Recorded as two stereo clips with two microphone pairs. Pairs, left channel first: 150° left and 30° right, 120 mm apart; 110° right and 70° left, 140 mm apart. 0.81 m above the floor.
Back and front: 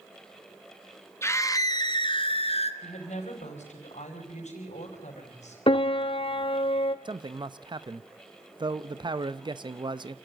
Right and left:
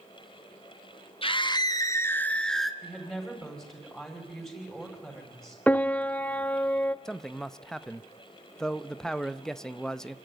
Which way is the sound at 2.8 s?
165° left.